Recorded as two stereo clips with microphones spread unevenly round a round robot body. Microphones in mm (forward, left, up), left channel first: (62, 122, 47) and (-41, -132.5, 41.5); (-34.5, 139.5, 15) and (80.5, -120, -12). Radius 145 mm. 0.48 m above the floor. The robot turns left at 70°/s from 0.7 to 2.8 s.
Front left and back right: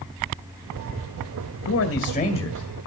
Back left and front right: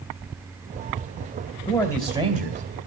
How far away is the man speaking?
About 2.0 m.